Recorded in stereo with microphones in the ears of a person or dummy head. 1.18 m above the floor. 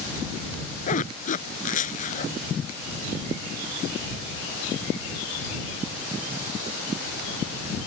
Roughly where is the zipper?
Left.